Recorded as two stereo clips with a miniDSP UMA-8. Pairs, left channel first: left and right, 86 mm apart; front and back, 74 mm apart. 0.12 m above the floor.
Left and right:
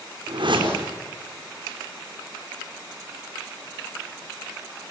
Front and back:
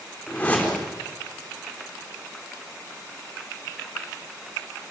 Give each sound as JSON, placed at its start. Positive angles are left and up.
{"t": 0.3, "sound": "a whoosh", "azimuth_deg": -70, "distance_m": 4.0}